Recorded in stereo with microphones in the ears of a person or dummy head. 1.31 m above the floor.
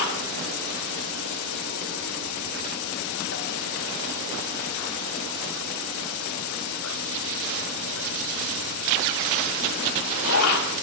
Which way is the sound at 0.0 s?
70° left (ahead or behind).